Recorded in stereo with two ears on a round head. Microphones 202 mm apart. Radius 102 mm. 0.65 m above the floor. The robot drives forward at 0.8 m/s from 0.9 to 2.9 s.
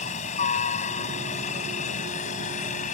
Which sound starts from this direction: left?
A helicopter, at 0.0 s.